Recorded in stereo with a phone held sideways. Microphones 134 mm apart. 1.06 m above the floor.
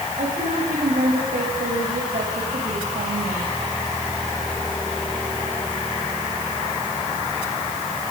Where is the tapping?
No tapping in this recording.